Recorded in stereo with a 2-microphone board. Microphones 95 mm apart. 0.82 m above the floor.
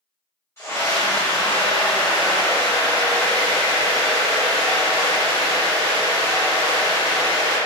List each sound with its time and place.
0.6 s a scream: 25° left (ahead or behind), 0.7 m